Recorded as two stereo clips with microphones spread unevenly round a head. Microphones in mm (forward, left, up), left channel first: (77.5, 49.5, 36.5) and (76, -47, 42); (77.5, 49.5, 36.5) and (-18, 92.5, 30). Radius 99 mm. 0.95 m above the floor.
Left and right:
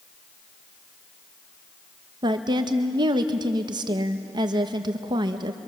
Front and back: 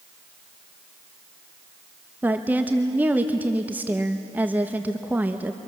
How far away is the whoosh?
I don't hear a whoosh.